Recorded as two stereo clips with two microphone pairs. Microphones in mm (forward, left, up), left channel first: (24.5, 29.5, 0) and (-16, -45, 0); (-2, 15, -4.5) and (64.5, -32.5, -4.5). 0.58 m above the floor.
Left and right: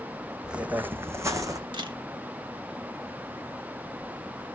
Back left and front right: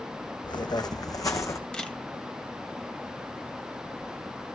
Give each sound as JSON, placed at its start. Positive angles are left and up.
{"t": 0.4, "sound": "footsteps", "azimuth_deg": 160, "distance_m": 1.6}
{"t": 1.7, "sound": "a camera shutter", "azimuth_deg": -135, "distance_m": 2.5}